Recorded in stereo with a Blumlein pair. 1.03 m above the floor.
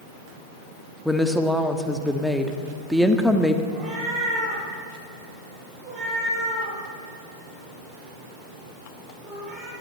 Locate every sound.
1.1 s a woman speaking: straight ahead, 1.7 m
3.7 s a cat meowing: 25° right, 9 m